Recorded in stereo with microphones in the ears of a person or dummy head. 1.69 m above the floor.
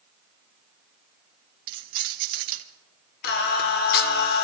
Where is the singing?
60° left (ahead or behind), 1.2 m.